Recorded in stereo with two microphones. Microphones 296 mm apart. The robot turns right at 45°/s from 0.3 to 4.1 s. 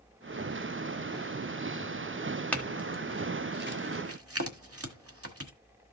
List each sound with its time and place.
2.5 s a clink: 5° left (ahead or behind), 1.6 m; by 5.5 s 50° right (ahead or behind), 1.6 m